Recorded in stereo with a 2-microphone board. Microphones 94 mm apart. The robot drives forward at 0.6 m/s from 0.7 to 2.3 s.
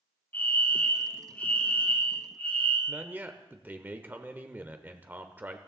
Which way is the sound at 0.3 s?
20° left (ahead or behind).